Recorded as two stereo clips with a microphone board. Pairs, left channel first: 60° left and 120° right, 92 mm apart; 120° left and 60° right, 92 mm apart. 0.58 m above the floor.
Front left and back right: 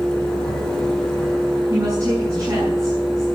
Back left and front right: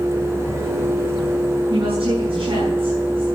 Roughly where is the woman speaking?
Ahead right.